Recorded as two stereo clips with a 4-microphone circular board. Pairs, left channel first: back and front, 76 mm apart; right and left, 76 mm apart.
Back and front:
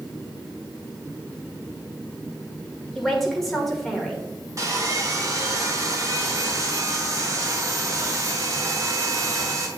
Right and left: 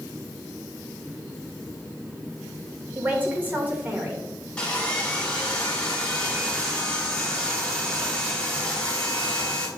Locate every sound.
3.0 s a man speaking: 100° left, 1.3 m
4.6 s sawing: 15° right, 1.6 m